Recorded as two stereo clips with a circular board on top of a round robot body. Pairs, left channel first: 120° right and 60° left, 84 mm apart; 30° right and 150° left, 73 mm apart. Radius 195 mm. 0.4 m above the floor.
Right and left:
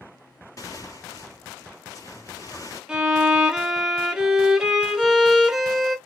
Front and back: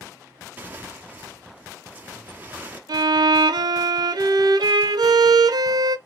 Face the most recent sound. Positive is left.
turn(degrees=140)